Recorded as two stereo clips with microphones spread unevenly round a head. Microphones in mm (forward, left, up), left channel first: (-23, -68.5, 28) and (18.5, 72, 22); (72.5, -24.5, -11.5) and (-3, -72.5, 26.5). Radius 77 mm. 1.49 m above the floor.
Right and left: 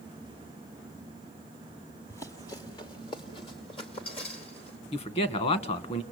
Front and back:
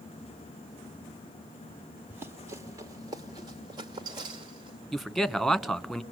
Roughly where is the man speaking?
Ahead right.